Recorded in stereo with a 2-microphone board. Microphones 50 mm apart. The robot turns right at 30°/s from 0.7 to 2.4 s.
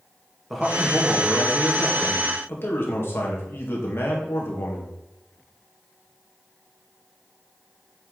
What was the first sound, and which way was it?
A man speaking, straight ahead.